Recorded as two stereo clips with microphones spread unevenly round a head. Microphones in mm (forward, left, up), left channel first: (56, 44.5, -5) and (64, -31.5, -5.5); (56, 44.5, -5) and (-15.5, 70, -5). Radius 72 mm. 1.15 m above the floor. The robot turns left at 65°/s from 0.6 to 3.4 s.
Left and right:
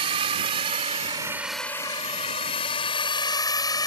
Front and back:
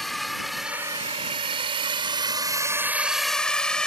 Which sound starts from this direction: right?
A drone, at 0.0 s.